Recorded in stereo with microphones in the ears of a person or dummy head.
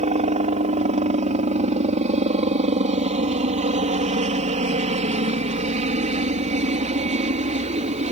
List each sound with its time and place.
0.0 s a helicopter: 30° right (ahead or behind)